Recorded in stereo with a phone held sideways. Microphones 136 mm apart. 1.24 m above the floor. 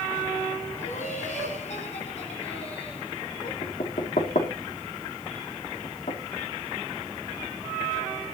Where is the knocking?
75° left (ahead or behind), 2.5 m.